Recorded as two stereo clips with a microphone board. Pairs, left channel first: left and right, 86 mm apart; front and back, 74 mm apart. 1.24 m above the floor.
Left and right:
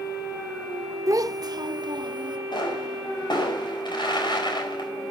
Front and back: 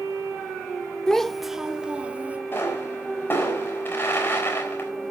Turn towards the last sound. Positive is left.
turn(degrees=60)